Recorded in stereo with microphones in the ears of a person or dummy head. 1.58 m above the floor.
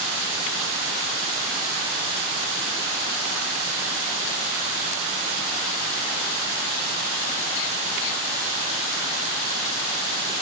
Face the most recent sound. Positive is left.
No sound to turn to.